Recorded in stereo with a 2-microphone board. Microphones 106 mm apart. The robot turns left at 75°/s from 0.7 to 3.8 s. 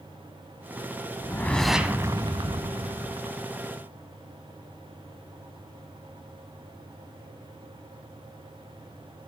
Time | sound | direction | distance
1.2 | a whoosh | 35° left | 0.9 m